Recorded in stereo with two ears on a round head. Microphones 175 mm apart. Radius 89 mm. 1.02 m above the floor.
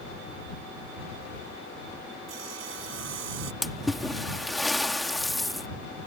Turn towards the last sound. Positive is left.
turn(degrees=0)  # may be behind; listen again after turning